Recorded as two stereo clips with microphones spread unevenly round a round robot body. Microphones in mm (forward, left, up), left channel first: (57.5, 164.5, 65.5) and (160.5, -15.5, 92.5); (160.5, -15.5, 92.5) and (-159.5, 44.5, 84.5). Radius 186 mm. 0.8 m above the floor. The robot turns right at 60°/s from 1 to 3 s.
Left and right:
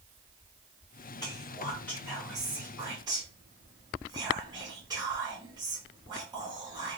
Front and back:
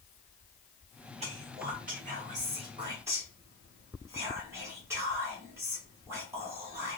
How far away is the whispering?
About 0.8 m.